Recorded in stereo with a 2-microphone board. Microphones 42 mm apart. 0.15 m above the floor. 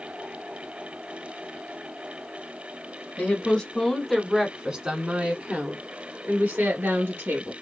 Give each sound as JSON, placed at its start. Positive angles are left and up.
{"t": 3.2, "sound": "a woman speaking", "side_deg": 25, "distance_m": 1.3}